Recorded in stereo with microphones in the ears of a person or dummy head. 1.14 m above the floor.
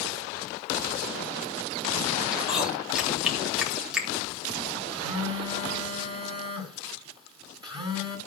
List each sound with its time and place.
2.3 s chewing: 5° right (ahead or behind), 3 m
4.9 s a phone buzzing: 30° right (ahead or behind), 2.5 m